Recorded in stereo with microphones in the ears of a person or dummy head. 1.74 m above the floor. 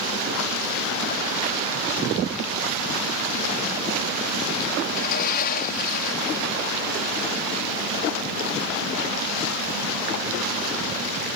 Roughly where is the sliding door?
Left.